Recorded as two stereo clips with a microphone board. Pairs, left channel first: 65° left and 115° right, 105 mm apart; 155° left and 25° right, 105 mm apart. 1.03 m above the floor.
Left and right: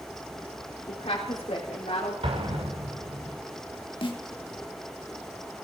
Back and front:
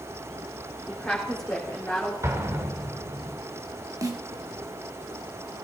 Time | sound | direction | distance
0.9 | a woman speaking | 80° left | 3.5 m
2.2 | an explosion | 85° right | 2.5 m
4.0 | a snare drum | 35° left | 2.0 m